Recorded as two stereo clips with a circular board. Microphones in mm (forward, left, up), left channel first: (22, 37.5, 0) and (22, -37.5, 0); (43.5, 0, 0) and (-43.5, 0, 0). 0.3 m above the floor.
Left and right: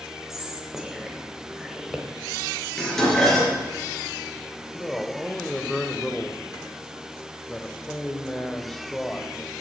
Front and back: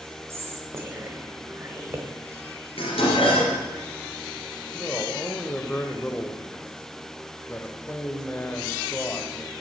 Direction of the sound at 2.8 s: 5° left.